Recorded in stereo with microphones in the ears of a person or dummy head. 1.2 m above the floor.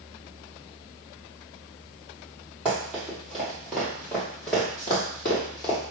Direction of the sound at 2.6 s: 10° right (ahead or behind).